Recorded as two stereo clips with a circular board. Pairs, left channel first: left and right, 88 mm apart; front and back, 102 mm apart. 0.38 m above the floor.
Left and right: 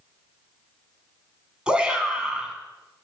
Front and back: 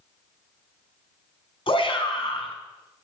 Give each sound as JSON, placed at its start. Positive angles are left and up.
{"t": 1.7, "sound": "a shout", "azimuth_deg": -10, "distance_m": 4.0}